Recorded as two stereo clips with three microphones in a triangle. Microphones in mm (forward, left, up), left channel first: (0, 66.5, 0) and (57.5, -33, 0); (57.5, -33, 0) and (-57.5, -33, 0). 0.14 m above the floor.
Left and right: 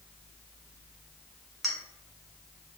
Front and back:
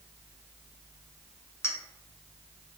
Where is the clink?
35° left, 0.6 m.